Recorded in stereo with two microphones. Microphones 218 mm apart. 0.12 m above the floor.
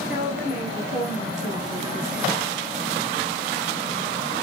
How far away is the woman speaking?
About 5 m.